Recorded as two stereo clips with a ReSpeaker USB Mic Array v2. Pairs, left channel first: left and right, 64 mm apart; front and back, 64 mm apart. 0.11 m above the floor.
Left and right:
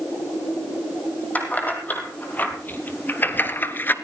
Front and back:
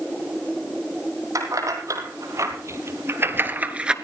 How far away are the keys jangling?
About 3 m.